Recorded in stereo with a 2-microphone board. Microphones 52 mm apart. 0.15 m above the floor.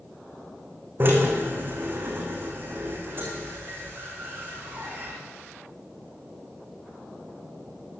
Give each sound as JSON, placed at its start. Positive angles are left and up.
{"t": 1.0, "sound": "a drill", "side_deg": -45, "distance_m": 6.5}